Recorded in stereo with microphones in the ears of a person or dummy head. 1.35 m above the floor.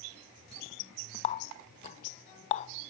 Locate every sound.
1.2 s a running tap: 40° left (ahead or behind), 0.7 m